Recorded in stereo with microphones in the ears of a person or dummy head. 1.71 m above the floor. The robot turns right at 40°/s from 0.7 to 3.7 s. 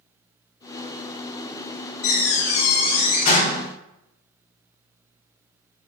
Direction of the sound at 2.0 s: 80° left.